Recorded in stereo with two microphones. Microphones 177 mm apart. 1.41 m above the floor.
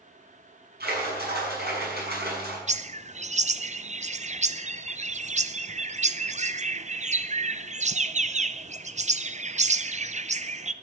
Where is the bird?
40° right (ahead or behind), 0.6 m.